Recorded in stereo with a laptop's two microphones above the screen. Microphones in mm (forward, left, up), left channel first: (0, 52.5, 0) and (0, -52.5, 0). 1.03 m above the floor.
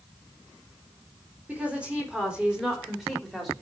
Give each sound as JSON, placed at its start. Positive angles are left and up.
{"t": 1.5, "sound": "a woman speaking", "side_deg": -10, "distance_m": 4.0}